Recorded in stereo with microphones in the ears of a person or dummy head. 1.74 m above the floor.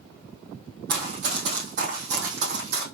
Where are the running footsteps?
45° right (ahead or behind), 2.5 m; by 2.8 s 50° right (ahead or behind), 3 m.